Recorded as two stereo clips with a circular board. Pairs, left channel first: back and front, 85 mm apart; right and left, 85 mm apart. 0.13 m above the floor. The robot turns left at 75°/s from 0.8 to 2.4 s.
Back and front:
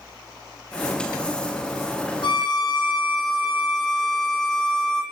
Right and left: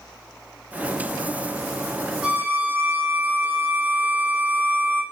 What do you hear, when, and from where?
2.2 s a violin: 170° left, 1.0 m; by 5.0 s 155° left, 1.0 m